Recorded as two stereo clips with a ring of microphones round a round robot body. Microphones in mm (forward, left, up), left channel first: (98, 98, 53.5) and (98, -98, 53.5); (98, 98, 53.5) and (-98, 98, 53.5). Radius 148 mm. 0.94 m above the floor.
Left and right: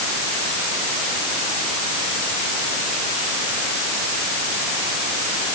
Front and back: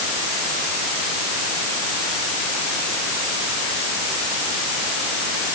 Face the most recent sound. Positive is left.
No sound to turn to.